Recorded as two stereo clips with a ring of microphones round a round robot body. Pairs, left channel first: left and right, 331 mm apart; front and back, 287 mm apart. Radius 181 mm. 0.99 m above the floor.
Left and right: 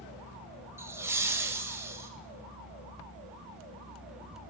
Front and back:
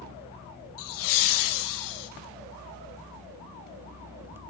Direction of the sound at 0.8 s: 10° right.